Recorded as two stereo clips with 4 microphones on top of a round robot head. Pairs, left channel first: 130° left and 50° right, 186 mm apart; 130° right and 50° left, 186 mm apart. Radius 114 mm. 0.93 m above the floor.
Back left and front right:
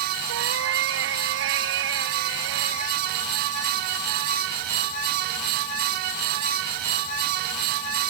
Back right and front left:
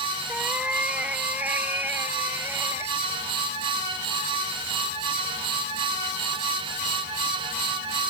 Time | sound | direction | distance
0.3 | a cat meowing | 35° right | ?